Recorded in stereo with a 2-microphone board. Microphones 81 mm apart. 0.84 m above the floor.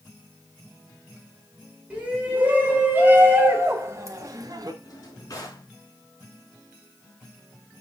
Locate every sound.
1.9 s a shout: 20° right (ahead or behind), 3.5 m; by 4.7 s 55° right (ahead or behind), 1.3 m
4.8 s a drawer: 45° left (ahead or behind), 3.5 m